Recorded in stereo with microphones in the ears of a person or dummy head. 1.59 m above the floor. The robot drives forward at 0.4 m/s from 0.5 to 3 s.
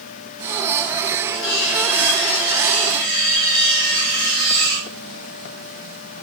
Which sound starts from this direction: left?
Cutlery clinking, at 1.3 s.